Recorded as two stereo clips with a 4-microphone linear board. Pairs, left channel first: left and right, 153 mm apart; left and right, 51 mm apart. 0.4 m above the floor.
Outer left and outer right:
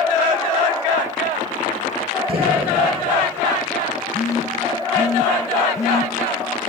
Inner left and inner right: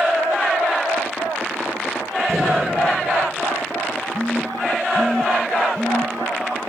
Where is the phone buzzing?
20° left (ahead or behind), 0.7 m.